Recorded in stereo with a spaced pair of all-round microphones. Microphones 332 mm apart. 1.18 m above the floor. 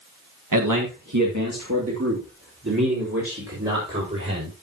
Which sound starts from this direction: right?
A man speaking, at 0.5 s.